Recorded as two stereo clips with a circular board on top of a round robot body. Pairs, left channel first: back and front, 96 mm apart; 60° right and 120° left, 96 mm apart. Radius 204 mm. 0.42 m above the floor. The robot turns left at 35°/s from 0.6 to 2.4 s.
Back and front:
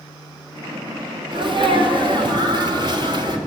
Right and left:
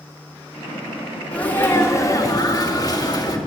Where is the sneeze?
15° left, 2 m; by 3.4 s 25° right, 2 m.